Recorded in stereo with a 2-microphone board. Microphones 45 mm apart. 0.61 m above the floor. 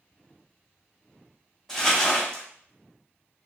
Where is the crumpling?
5° right (ahead or behind), 2.5 m.